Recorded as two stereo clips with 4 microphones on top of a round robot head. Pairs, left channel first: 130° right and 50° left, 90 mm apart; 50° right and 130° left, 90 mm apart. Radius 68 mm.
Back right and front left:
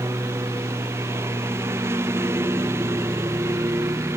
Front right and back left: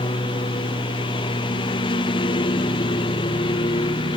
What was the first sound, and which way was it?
A lawn mower, 15° right.